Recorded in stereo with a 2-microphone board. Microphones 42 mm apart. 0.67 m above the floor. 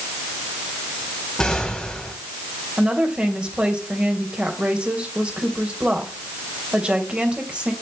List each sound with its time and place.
1.4 s an explosion: 15° left (ahead or behind), 3 m
2.8 s a woman speaking: 30° right (ahead or behind), 2.5 m